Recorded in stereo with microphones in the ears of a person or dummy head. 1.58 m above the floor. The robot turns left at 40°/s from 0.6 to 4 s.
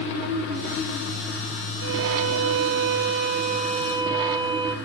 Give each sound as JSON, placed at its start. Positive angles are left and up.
{"t": 1.8, "sound": "a violin", "azimuth_deg": -70, "distance_m": 2.0}